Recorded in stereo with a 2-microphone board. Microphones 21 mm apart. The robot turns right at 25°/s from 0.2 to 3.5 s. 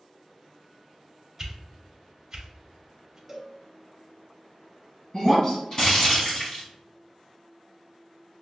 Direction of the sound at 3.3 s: 15° right (ahead or behind).